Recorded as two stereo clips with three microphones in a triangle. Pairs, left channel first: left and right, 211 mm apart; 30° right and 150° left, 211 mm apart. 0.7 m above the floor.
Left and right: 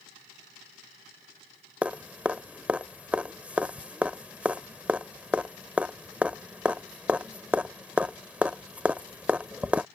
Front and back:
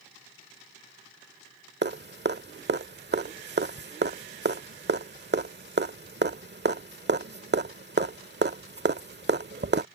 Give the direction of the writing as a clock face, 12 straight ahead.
I don't hear writing.